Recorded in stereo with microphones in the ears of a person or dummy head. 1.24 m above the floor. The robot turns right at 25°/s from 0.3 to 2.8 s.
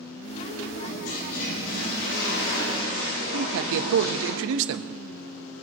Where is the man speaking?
75° right (ahead or behind), 1.3 m.